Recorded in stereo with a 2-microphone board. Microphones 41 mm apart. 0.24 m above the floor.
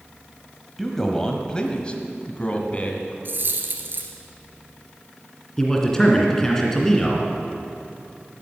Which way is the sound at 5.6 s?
15° left (ahead or behind).